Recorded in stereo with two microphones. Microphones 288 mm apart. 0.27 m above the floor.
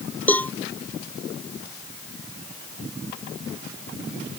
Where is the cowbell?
5° left (ahead or behind).